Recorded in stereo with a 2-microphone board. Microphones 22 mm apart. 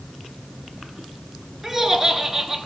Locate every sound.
1.6 s laughter: 10° right (ahead or behind), 1.2 m